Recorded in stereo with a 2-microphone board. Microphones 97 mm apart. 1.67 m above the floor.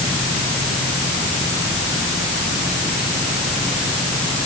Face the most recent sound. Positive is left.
No sound to turn to.